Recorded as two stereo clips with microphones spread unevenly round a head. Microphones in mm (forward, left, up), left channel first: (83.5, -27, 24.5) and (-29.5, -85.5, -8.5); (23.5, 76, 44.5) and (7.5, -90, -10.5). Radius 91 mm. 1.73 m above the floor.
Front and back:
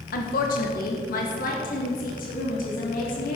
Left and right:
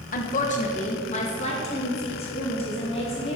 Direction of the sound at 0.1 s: 45° left.